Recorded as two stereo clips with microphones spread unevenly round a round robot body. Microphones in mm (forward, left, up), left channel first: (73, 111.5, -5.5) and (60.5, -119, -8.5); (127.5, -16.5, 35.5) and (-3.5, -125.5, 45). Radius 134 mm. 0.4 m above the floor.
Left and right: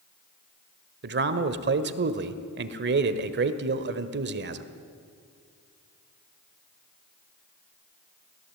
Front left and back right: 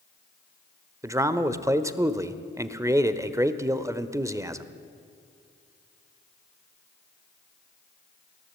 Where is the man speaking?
70° right, 1.3 m.